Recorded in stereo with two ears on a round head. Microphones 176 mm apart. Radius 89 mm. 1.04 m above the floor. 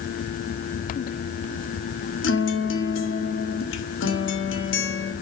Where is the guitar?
65° left (ahead or behind), 2.0 m.